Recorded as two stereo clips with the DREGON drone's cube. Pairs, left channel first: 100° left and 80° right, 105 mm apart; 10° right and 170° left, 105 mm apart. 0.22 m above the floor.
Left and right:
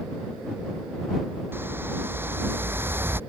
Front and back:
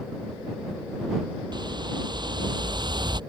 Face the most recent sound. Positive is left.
turn(degrees=-145)